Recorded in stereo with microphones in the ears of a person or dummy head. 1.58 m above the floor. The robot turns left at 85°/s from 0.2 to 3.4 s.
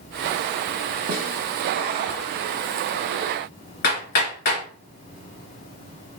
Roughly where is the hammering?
Left.